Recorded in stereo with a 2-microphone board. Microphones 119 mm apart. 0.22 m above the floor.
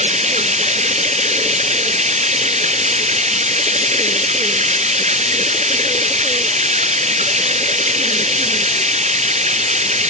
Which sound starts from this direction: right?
Running water, at 0.0 s.